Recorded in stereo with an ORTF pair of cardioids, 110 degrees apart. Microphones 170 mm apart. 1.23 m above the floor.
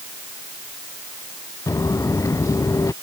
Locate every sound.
1.7 s footsteps: 20° left